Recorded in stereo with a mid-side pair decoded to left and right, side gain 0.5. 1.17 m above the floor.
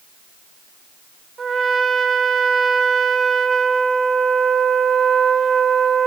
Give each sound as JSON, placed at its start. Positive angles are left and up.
{"t": 1.4, "sound": "a trumpet", "azimuth_deg": -40, "distance_m": 2.0}